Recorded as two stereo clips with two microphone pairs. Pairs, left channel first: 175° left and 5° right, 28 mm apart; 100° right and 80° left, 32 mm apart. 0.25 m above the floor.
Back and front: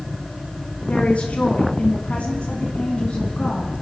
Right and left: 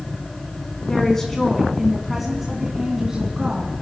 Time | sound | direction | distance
0.9 | a woman speaking | 170° right | 2 m